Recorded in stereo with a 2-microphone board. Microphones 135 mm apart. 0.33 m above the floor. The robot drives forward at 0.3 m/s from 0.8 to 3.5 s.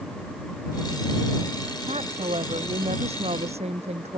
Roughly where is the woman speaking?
Right.